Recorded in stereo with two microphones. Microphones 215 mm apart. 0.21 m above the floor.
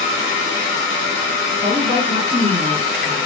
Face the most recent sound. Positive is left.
turn(degrees=-15)  # may be behind; listen again after turning